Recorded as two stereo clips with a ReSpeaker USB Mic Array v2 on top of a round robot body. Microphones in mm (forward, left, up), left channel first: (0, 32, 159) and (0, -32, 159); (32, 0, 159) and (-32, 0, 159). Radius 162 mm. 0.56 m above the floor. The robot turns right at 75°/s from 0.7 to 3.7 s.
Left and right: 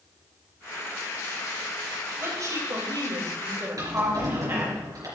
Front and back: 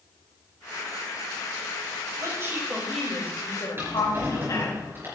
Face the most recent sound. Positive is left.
turn(degrees=-125)